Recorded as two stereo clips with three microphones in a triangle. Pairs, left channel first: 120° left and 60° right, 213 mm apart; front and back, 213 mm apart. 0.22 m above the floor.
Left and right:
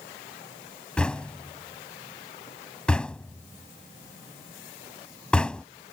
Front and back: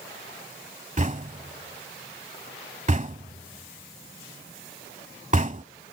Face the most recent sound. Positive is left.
turn(degrees=-155)